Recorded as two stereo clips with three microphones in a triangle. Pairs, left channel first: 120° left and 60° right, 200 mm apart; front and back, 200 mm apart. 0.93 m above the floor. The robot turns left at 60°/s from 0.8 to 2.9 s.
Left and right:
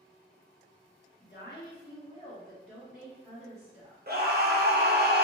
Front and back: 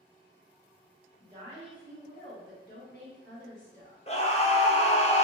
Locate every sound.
1.2 s a woman speaking: 115° left, 1.2 m; by 4.0 s 15° left, 1.2 m
4.1 s a scream: 45° right, 0.6 m